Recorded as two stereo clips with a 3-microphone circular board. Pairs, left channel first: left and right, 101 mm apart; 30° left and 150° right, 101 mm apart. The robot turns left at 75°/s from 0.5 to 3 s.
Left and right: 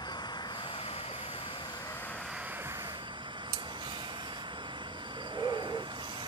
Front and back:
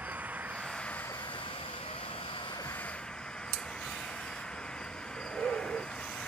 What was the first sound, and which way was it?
An engine running, 135° left.